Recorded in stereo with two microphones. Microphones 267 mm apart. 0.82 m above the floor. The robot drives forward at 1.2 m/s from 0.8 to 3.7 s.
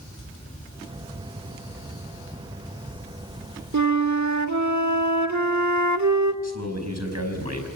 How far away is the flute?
About 1.3 m.